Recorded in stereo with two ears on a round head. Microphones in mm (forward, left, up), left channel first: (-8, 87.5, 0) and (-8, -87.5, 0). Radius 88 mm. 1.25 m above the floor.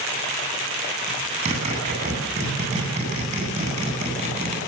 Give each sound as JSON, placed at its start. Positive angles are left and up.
{"t": 1.1, "sound": "a zipper", "side_deg": -35, "distance_m": 10.0}